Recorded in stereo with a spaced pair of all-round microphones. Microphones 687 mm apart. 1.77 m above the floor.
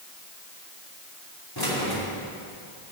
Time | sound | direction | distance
1.6 | keys jangling | 30° left (ahead or behind) | 3 m